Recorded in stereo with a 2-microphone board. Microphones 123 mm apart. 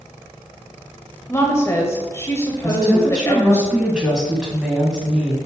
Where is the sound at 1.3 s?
20° left (ahead or behind), 1.3 m.